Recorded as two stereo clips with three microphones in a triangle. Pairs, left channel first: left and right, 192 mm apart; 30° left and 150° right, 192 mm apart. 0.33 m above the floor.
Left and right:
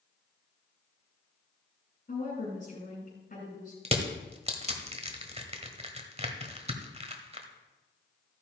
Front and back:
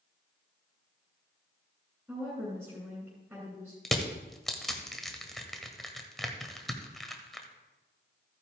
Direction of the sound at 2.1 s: 130° left.